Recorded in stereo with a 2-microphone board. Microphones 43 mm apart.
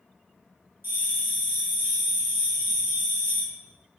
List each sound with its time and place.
0.8 s a bell: 65° right (ahead or behind), 2.5 m